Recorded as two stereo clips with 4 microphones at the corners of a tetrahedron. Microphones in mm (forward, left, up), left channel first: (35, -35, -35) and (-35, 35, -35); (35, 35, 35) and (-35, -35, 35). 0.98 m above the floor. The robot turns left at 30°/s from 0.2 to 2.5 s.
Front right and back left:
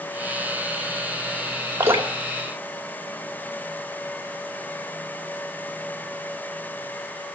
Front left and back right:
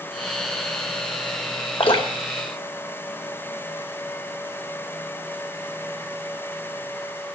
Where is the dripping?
75° left, 2 m; by 3.8 s 50° left, 2 m.